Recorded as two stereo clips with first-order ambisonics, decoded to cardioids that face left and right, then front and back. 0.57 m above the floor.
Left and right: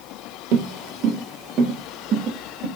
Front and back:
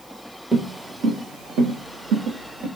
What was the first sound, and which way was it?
Footsteps, 95° right.